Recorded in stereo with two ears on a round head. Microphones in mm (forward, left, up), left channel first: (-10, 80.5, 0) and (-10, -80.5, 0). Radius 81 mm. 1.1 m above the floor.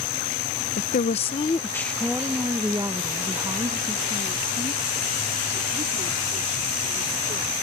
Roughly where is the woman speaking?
Left.